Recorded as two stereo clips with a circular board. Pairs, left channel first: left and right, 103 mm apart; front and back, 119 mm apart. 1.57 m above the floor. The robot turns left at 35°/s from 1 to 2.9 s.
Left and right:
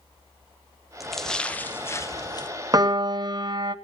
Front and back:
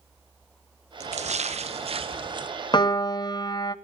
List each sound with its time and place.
1.0 s a splash: 175° right, 0.7 m; by 2.5 s 130° left, 0.7 m
2.7 s a piano: 40° right, 0.6 m; by 3.8 s 50° right, 0.6 m